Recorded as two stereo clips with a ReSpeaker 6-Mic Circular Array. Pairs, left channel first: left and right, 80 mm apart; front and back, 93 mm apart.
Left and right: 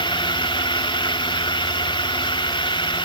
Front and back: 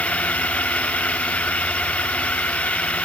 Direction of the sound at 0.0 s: 75° left.